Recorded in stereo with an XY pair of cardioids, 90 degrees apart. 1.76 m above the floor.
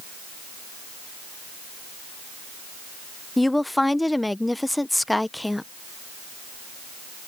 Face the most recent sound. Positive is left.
turn(degrees=10)